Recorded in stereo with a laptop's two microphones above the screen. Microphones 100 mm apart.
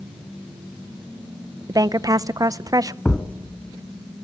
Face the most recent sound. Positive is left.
turn(degrees=15)  # may be behind; listen again after turning